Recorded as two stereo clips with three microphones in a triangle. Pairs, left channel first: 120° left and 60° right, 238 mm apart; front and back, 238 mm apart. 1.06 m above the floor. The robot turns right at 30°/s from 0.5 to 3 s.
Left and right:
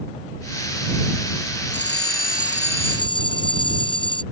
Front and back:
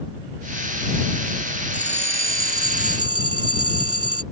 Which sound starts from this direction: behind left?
A bell, at 1.7 s.